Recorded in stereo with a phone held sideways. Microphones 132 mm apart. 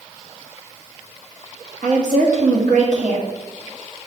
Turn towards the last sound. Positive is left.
turn(degrees=-70)  # may be behind; listen again after turning